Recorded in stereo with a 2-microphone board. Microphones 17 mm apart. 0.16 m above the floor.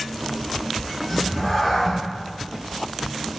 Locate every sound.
1.1 s a cat meowing: 25° left (ahead or behind), 0.9 m